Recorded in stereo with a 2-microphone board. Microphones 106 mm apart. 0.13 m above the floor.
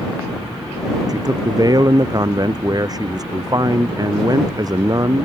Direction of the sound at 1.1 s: 35° right (ahead or behind).